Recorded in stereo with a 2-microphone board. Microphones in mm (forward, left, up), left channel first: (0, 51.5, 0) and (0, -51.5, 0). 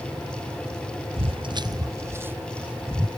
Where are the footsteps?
65° right (ahead or behind); by 3.1 s 5° right (ahead or behind).